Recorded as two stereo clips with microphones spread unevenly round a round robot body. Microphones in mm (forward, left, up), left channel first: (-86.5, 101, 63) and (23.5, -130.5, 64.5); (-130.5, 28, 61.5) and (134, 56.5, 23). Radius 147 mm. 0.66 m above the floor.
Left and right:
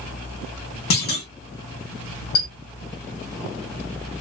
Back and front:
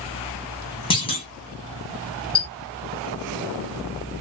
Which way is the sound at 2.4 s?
110° left.